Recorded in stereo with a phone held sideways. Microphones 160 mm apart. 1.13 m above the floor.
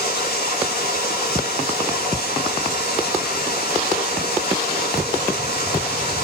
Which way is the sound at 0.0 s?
85° left.